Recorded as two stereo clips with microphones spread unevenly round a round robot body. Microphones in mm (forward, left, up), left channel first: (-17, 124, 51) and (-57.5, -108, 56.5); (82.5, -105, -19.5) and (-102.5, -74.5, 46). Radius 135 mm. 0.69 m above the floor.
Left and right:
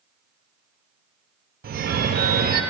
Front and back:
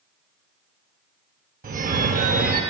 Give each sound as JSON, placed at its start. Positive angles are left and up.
{"t": 1.6, "sound": "a phone ringing", "azimuth_deg": -135, "distance_m": 0.5}